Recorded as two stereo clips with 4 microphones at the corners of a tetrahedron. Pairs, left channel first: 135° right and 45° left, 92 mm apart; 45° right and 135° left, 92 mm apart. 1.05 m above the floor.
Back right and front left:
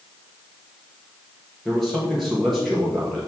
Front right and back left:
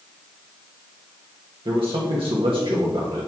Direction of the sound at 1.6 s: 140° left.